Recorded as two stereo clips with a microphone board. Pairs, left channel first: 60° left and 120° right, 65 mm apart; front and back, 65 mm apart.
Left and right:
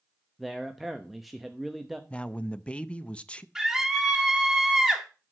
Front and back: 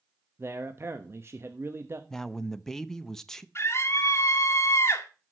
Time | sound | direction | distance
0.4 | a man speaking | 150° left | 0.9 m
2.1 | a man speaking | 65° left | 0.6 m
3.5 | a scream | 30° right | 1.4 m